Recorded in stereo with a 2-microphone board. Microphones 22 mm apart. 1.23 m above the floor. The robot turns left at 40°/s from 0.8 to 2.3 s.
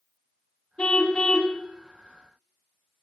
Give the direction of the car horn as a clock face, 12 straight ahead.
10 o'clock.